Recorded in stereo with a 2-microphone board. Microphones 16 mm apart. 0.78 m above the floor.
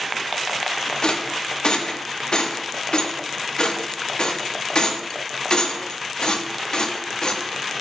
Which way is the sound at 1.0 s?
55° left (ahead or behind).